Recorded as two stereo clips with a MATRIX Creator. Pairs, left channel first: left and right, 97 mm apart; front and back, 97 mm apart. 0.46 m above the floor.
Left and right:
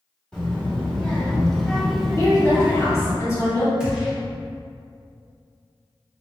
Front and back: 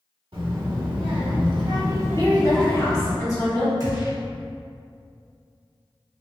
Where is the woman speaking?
40° left, 1.4 m.